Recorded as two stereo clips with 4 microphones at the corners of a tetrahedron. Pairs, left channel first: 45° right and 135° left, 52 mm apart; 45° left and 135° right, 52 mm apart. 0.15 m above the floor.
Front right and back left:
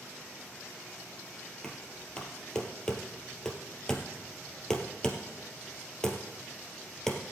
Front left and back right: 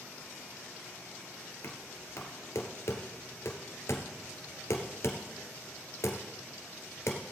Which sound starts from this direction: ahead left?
Knocking, at 1.6 s.